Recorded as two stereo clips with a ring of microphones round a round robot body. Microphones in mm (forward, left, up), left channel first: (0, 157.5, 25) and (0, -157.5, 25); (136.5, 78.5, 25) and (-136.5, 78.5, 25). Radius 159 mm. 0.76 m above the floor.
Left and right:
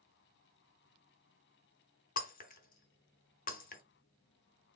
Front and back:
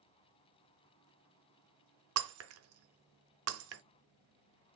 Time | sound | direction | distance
2.2 | breaking glass | 150° left | 0.6 m